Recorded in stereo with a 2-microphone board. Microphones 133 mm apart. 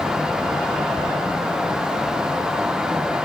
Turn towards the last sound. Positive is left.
No sound to turn to.